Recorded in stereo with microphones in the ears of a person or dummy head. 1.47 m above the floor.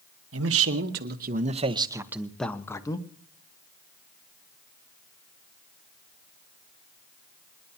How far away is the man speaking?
About 1.4 m.